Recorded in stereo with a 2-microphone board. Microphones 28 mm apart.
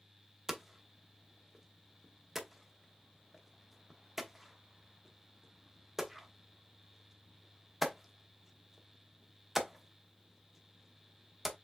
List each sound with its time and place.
0.5 s hammering: 10° right (ahead or behind), 0.8 m